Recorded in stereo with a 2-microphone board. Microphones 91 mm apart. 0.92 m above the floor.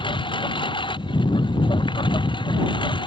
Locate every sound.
0.0 s a lawn mower: 75° left (ahead or behind); by 3.1 s 70° left (ahead or behind)